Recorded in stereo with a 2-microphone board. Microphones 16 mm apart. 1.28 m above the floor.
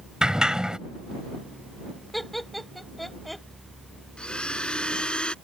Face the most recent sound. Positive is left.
turn(degrees=70)  # may be behind; listen again after turning